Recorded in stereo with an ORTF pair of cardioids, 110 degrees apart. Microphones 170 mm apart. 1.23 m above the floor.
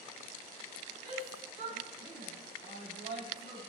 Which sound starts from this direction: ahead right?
A shout, at 1.0 s.